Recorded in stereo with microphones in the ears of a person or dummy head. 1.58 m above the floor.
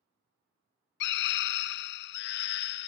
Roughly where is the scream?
Left.